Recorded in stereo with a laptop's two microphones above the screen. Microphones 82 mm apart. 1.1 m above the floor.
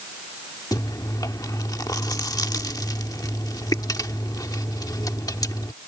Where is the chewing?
50° left (ahead or behind).